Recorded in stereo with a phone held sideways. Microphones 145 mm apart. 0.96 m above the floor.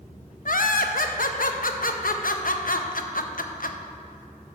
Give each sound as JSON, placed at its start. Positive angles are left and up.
{"t": 0.5, "sound": "laughter", "side_deg": 70, "distance_m": 0.6}